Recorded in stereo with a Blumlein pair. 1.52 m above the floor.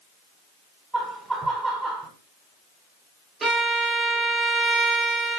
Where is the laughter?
15° right, 1.5 m.